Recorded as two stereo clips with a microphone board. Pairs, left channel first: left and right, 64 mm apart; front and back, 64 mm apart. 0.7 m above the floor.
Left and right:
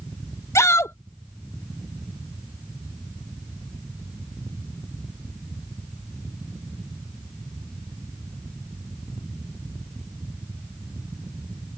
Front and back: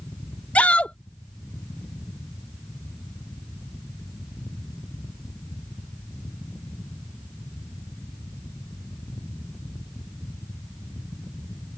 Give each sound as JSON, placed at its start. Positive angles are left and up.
{"t": 0.6, "sound": "a shout", "azimuth_deg": 65}